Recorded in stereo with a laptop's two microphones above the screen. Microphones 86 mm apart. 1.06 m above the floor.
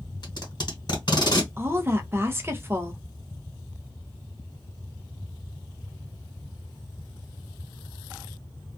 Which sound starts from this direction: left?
Tape being pulled, at 0.2 s.